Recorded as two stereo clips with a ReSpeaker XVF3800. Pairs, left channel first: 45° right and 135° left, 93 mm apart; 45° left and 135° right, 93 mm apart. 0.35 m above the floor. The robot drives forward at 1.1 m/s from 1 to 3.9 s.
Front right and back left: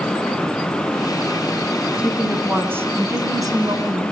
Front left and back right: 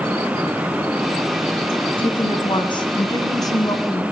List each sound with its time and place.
2.0 s a woman speaking: 55° left, 3 m; by 4.0 s 100° left, 2.5 m